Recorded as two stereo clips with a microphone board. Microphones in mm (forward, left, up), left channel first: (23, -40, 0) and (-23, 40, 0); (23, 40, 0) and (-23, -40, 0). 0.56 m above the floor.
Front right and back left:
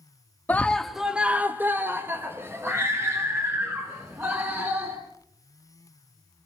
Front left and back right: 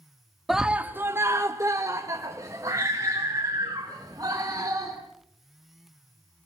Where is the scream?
35° right, 0.9 m; by 5.0 s straight behind, 6 m.